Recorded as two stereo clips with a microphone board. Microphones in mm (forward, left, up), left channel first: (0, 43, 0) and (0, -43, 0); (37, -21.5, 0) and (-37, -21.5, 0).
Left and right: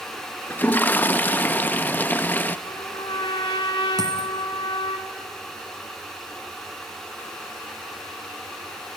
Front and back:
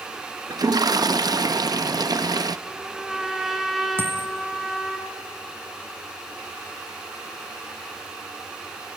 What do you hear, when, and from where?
0.5 s a toilet flushing: 160° left, 0.5 m
2.7 s a trumpet: 95° left, 1.7 m
4.0 s a dropped coin: 125° right, 1.8 m